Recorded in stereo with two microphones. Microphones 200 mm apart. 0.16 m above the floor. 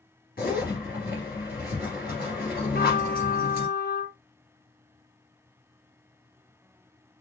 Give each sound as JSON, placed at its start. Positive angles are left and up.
{"t": 0.4, "sound": "a zipper", "side_deg": 50, "distance_m": 2.5}
{"t": 2.7, "sound": "a trumpet", "side_deg": 50, "distance_m": 0.7}